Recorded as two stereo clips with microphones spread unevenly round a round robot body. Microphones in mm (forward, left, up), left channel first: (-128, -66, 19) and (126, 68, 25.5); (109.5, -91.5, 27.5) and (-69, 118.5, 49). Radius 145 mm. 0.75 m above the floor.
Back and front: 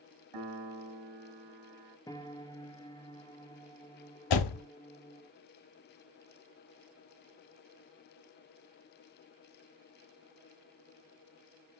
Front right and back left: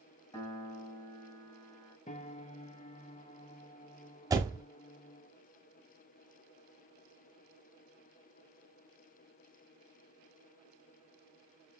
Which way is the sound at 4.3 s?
150° right.